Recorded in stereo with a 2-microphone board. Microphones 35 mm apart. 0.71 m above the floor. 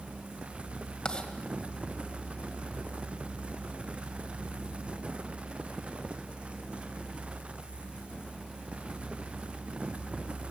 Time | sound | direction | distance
1.1 | writing | 25° left (ahead or behind) | 2.0 m